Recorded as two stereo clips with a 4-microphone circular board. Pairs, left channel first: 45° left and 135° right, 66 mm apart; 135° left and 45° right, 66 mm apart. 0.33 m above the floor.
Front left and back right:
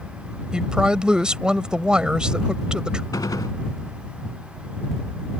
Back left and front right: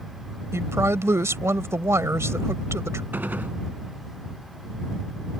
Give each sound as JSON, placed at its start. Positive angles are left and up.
{"t": 0.5, "sound": "a woman speaking", "azimuth_deg": -60}
{"t": 3.1, "sound": "a gunshot", "azimuth_deg": 20}